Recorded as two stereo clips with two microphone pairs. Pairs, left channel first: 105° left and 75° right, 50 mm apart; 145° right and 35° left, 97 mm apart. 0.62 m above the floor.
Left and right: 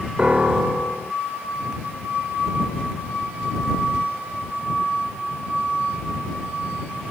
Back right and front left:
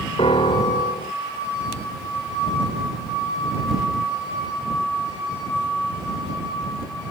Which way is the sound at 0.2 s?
145° right.